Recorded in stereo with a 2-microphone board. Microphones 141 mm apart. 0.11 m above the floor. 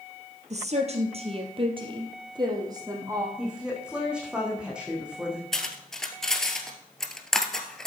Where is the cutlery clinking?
5° left (ahead or behind), 1.4 m.